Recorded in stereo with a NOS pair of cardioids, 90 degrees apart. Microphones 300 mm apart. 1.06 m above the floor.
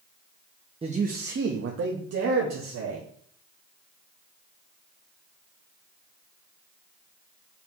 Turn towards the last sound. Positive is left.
turn(degrees=-65)